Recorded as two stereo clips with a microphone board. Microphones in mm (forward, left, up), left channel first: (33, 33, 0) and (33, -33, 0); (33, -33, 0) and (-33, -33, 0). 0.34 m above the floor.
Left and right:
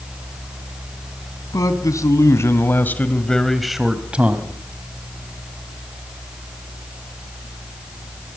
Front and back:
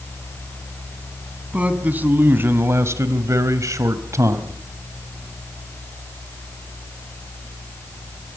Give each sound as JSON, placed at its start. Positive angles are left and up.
{"t": 1.5, "sound": "a man speaking", "azimuth_deg": 110, "distance_m": 3.0}